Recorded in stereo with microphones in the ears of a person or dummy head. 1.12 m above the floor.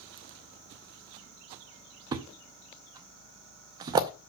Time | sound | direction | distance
2.1 | a thud | 15° right (ahead or behind) | 0.6 m